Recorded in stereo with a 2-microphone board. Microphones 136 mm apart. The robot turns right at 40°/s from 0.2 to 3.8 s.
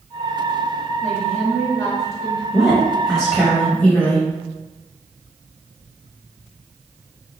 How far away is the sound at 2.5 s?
About 0.9 m.